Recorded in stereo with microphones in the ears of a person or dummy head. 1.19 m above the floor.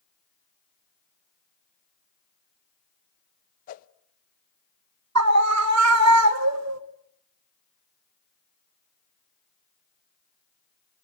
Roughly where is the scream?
Right.